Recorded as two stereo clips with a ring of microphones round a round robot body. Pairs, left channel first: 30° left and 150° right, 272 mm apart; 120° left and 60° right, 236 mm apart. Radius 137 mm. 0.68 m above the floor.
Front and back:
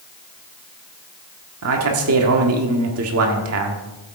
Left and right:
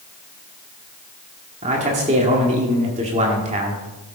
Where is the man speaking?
120° right, 1.6 m.